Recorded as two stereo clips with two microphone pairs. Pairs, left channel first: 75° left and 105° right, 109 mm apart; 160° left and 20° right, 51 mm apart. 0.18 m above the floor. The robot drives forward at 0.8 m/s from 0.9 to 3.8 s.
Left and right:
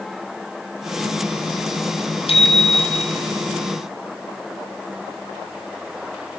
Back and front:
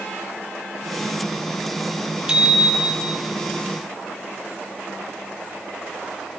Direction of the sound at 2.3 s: 50° left.